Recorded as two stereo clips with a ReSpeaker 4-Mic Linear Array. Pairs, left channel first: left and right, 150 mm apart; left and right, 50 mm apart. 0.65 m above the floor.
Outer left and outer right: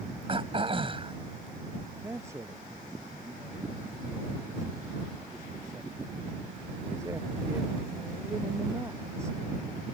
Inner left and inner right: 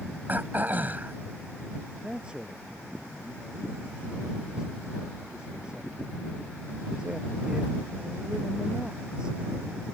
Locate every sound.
0.3 s throat clearing: 35° right (ahead or behind)
2.0 s a man speaking: 20° right (ahead or behind)